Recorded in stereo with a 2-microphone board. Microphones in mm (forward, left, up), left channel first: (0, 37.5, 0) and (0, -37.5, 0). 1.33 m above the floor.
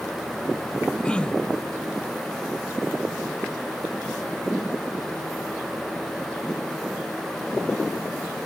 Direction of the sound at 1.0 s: 15° left (ahead or behind).